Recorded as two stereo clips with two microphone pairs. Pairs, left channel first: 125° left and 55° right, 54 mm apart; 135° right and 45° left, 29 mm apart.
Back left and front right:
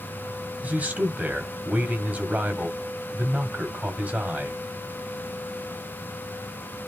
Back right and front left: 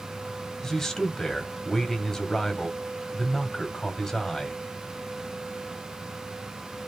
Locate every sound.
0.6 s a man speaking: 80° right, 1.3 m